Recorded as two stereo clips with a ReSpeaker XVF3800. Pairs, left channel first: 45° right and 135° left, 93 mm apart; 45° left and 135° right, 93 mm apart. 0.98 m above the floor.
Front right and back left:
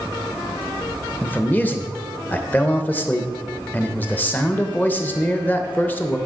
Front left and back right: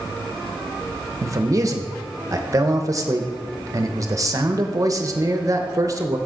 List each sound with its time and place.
1.2 s a man speaking: 110° right, 0.8 m